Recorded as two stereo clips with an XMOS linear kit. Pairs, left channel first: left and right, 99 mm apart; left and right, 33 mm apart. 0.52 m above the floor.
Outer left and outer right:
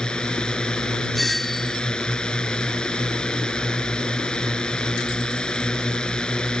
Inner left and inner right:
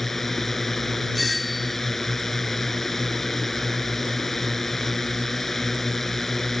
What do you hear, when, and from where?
0.0 s a drone: 5° left (ahead or behind)
1.1 s a doorbell: centre (ahead or behind)